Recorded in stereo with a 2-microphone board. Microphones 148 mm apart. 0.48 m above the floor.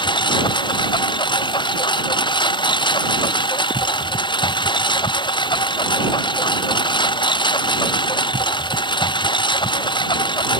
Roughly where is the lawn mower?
Left.